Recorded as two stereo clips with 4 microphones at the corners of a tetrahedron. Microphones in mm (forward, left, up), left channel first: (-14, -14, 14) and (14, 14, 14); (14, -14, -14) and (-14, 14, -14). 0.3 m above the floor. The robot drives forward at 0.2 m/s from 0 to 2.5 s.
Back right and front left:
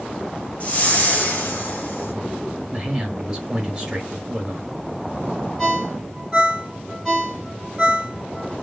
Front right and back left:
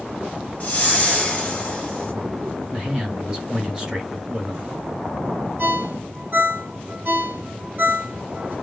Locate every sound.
0.6 s a whoosh: 90° right, 1.0 m; by 2.1 s 110° right, 1.1 m
2.7 s a man speaking: 85° left, 1.1 m
5.6 s a ringtone: 140° left, 1.5 m